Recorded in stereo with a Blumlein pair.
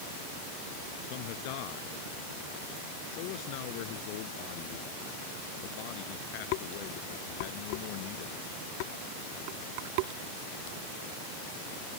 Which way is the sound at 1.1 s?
45° left.